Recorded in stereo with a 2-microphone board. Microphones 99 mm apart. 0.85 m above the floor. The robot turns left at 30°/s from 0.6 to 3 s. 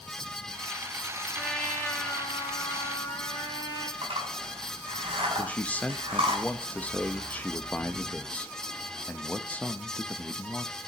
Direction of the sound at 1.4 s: 175° left.